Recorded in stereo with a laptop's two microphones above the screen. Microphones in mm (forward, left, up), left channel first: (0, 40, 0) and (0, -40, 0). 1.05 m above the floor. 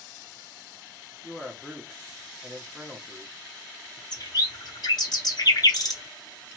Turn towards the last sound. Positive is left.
turn(degrees=60)  # may be behind; listen again after turning